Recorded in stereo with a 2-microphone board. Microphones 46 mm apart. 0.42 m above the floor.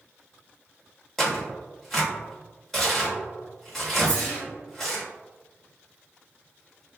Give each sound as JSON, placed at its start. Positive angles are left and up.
{"t": 1.2, "sound": "tearing paper", "side_deg": 10, "distance_m": 1.3}
{"t": 4.0, "sound": "a whoosh", "side_deg": 20, "distance_m": 1.3}